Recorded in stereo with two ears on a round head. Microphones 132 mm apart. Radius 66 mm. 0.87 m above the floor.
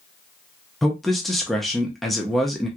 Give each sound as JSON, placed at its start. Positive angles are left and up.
{"t": 0.8, "sound": "a man speaking", "side_deg": 0, "distance_m": 0.7}